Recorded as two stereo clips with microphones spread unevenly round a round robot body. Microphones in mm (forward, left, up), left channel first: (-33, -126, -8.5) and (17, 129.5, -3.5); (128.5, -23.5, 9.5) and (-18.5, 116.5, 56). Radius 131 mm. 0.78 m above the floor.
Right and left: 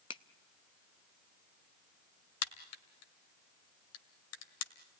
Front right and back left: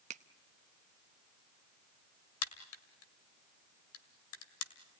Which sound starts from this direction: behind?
A finger snap, at 0.1 s.